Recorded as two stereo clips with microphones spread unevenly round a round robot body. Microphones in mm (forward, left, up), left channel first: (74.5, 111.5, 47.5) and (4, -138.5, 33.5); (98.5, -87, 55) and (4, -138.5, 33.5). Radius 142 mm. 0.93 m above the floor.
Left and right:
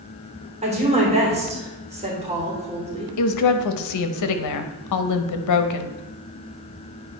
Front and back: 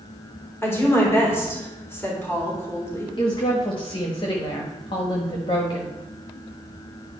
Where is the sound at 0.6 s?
40° right, 3.5 m.